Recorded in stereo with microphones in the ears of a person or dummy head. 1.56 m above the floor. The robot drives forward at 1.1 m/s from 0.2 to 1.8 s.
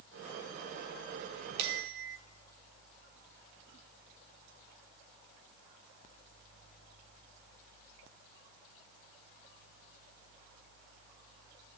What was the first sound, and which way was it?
A bell, 55° right (ahead or behind).